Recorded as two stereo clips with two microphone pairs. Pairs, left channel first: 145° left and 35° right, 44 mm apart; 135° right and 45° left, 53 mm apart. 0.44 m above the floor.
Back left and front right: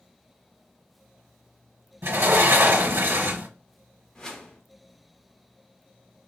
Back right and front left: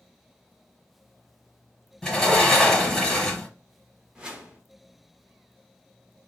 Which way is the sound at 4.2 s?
95° left.